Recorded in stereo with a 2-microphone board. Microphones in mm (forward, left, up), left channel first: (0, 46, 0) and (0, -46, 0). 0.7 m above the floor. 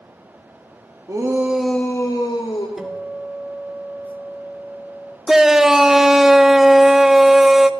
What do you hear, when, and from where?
1.1 s a shout: 40° right (ahead or behind), 1.3 m; by 2.7 s 60° left (ahead or behind), 1.8 m
2.8 s a guitar: 5° right (ahead or behind), 1.3 m
5.3 s a shout: 5° right (ahead or behind), 0.6 m